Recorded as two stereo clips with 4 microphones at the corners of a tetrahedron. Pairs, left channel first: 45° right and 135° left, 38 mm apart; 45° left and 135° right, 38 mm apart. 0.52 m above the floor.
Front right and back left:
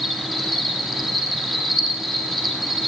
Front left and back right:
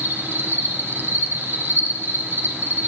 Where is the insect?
140° right, 1.9 m.